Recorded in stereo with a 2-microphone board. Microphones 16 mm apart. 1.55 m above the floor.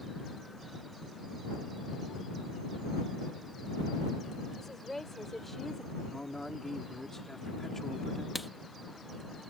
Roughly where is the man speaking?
Left.